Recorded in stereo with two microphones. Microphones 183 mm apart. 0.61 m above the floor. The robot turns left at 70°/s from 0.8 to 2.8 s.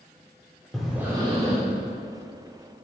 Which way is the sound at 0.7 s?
Straight ahead.